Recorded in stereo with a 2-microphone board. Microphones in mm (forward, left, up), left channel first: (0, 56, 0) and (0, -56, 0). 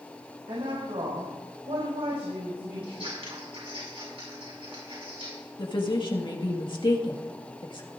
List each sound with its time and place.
0.5 s a woman speaking: 75° right (ahead or behind), 5.5 m
2.8 s scissors: 60° right (ahead or behind), 6.5 m
5.6 s a woman speaking: 45° left (ahead or behind), 1.8 m